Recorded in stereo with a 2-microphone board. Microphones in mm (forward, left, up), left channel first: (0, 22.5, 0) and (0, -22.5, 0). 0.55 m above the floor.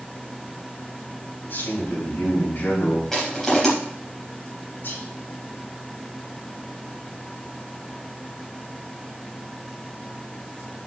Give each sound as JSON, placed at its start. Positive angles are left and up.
{"t": 1.4, "sound": "a man speaking", "side_deg": 55, "distance_m": 4.5}
{"t": 3.1, "sound": "crushing", "side_deg": 5, "distance_m": 4.5}
{"t": 4.8, "sound": "whispering", "side_deg": 45, "distance_m": 4.0}